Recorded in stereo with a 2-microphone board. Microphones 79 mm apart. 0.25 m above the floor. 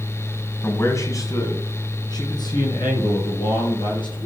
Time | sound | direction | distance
0.6 | a man speaking | 30° left (ahead or behind) | 2 m